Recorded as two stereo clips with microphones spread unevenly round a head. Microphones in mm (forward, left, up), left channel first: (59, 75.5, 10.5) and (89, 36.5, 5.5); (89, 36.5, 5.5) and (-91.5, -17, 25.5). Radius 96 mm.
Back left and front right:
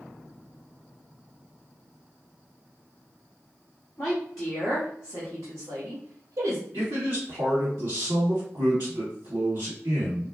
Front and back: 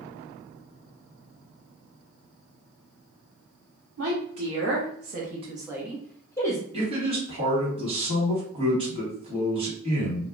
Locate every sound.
4.0 s a woman speaking: 160° right, 1.0 m; by 6.6 s 55° right, 1.0 m
6.7 s a man speaking: 100° right, 1.4 m